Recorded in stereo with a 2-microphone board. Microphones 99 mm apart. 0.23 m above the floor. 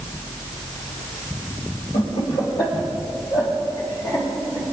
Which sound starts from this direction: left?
Laughter, at 1.9 s.